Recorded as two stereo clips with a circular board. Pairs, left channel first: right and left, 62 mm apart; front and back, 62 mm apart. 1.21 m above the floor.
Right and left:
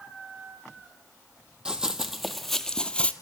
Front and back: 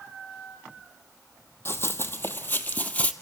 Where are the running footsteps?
20° left, 1.6 m; by 3.1 s 40° right, 1.4 m.